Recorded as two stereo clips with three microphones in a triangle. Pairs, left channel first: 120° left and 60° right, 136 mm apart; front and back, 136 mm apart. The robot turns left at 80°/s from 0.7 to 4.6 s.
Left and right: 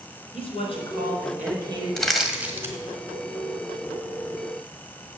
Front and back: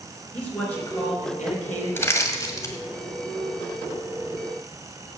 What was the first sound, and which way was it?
A man speaking, 80° left.